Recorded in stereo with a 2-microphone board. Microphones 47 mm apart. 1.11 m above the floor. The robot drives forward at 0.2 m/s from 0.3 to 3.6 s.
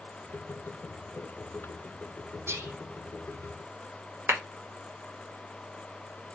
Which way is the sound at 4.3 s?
55° right (ahead or behind).